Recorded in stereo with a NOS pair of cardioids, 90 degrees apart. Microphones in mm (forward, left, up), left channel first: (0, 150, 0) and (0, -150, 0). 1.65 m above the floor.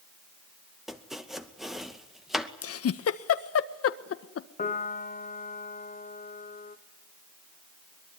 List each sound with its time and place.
0.9 s chopping: straight ahead, 2 m
2.6 s a giggle: 50° left, 1.5 m
4.6 s a piano: 30° left, 2.5 m